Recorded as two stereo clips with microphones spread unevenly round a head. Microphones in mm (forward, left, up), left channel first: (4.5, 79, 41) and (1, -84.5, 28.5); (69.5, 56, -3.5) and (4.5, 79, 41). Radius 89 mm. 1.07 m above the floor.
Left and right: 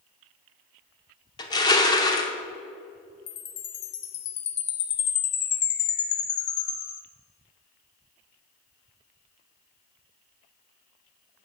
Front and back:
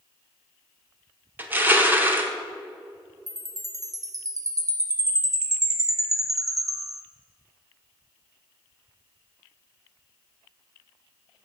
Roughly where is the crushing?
Behind left.